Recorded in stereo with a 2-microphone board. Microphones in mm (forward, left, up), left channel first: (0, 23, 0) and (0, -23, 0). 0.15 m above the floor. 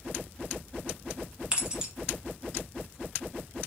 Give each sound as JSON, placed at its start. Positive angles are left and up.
{"t": 1.5, "sound": "keys jangling", "side_deg": -20, "distance_m": 0.8}